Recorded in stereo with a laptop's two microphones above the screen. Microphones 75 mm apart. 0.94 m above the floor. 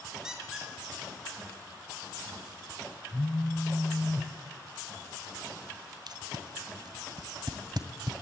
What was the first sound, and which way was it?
A squeak, 5° right (ahead or behind).